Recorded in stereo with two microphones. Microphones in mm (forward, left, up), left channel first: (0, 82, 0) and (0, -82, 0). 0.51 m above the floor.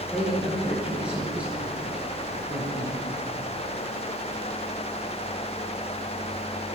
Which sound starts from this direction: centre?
A man speaking, at 0.1 s.